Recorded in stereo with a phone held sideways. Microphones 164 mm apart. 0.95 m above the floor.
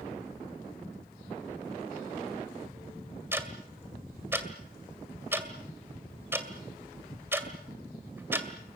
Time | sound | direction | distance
3.3 | ticking | 15° right (ahead or behind) | 2 m